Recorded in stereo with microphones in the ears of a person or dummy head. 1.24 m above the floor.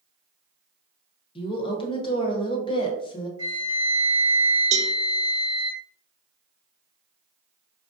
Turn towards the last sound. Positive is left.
turn(degrees=-35)  # may be behind; listen again after turning